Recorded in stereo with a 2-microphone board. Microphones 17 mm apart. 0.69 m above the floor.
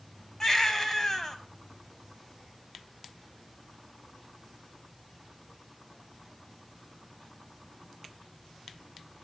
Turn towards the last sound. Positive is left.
turn(degrees=30)  # may be behind; listen again after turning